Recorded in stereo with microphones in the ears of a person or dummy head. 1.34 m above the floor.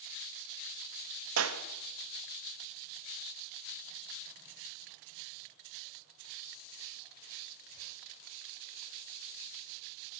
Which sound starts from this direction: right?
A clap, at 1.4 s.